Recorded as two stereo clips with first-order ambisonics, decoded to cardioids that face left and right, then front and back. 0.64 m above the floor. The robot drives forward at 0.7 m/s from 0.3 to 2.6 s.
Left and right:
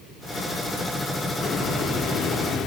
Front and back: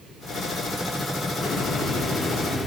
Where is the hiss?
45° left, 1.7 m; by 2.7 s 80° left, 1.4 m.